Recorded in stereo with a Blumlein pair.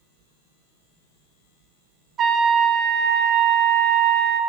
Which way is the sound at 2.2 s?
25° right.